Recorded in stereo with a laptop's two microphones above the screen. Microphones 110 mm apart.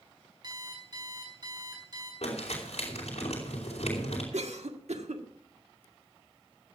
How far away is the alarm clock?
About 4.5 m.